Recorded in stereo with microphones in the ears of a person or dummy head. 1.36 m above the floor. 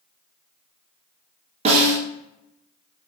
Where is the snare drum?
30° right (ahead or behind), 0.7 m.